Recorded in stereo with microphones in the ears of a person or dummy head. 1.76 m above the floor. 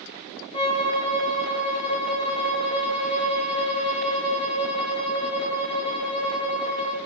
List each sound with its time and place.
0.5 s a violin: 30° left (ahead or behind), 0.6 m